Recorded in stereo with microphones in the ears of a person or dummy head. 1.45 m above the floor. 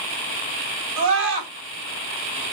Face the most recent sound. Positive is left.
turn(degrees=-75)  # may be behind; listen again after turning